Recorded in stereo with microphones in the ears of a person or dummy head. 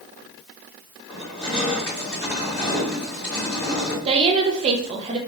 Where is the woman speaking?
30° right (ahead or behind), 0.6 m.